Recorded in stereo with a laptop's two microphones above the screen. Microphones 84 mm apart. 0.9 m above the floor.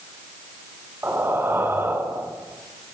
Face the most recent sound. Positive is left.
turn(degrees=-25)  # may be behind; listen again after turning